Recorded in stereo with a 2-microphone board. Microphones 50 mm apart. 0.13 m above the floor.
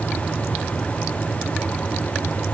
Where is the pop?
I don't hear a pop.